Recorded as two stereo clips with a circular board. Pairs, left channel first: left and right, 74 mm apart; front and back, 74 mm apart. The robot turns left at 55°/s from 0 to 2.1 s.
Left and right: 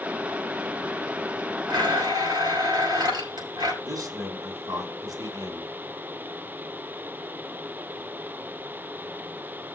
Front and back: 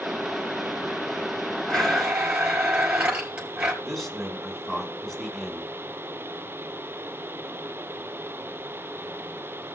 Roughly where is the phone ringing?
No phone ringing in this recording.